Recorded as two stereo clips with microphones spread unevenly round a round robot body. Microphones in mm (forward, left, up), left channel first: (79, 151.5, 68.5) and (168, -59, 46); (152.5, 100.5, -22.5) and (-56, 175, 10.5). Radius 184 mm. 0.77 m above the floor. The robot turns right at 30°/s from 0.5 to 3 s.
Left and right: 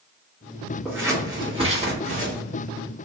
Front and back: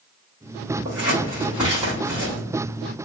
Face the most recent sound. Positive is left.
turn(degrees=-90)